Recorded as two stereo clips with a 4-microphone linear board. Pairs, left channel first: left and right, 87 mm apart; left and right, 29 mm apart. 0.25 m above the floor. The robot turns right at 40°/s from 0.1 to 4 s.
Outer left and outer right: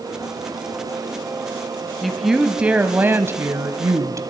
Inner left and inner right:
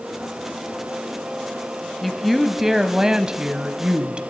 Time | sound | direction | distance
2.0 | a woman speaking | 175° left | 1.2 m